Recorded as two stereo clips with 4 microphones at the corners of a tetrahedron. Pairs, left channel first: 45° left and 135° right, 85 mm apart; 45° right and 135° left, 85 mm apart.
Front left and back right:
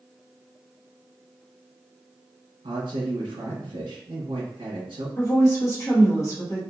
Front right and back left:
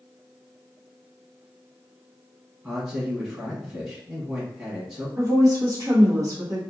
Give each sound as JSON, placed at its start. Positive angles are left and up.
{"t": 2.6, "sound": "a man speaking", "azimuth_deg": -155, "distance_m": 1.1}
{"t": 5.2, "sound": "a woman speaking", "azimuth_deg": 90, "distance_m": 1.1}